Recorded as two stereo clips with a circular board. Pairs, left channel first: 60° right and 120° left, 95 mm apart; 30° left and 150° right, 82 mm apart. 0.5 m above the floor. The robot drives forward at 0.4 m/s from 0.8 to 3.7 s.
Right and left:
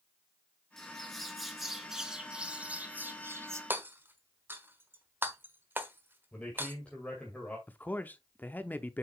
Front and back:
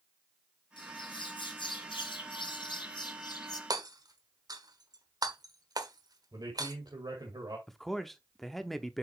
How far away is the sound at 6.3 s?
About 2 m.